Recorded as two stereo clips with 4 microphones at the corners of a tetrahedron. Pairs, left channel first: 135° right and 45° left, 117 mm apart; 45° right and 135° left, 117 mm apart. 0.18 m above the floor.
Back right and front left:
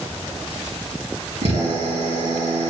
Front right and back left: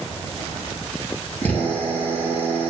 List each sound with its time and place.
1.4 s a drill: 30° left, 3.5 m